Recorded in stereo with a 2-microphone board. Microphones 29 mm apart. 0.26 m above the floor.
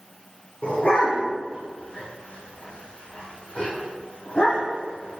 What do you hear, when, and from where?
0.6 s a dog barking: 45° left (ahead or behind), 6.5 m